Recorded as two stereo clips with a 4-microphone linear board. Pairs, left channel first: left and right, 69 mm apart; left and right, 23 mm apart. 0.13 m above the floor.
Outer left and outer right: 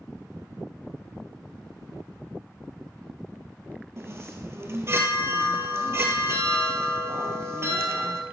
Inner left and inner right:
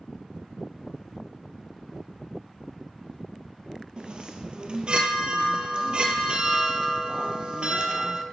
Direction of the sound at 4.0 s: 40° right (ahead or behind).